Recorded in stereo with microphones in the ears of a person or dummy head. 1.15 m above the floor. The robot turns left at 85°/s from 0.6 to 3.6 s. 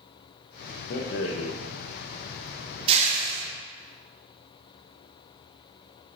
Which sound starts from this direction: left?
A rattle, at 0.9 s.